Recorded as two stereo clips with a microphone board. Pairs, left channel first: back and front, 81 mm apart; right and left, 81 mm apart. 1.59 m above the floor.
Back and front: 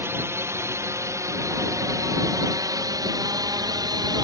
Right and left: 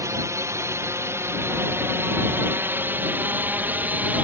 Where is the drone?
50° left; by 4.3 s 25° left.